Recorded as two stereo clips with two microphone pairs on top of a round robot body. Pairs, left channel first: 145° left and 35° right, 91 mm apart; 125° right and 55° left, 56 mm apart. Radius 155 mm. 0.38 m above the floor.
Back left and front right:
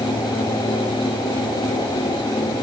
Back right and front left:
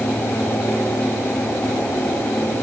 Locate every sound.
Only background noise.